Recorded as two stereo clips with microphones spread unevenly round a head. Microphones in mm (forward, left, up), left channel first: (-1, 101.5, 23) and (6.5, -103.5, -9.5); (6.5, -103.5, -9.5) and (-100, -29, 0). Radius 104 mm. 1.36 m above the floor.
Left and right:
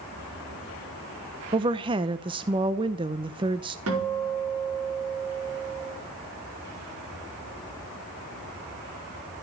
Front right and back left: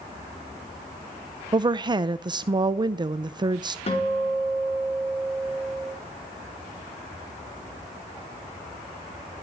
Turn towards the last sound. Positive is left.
turn(degrees=-75)